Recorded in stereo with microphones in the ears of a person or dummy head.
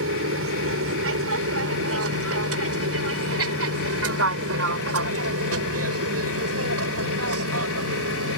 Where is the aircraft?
70° right (ahead or behind); by 8.4 s 75° right (ahead or behind).